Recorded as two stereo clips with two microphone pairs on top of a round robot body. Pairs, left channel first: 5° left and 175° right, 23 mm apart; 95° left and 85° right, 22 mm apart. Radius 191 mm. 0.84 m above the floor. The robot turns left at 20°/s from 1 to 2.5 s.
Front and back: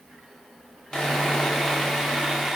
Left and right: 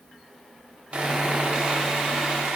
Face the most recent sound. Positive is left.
turn(degrees=-80)